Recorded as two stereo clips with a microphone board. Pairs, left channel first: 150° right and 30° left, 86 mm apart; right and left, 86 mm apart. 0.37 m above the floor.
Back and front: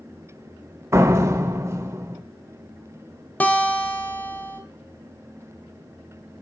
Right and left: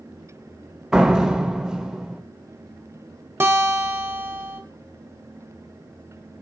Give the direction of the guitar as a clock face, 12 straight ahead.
7 o'clock.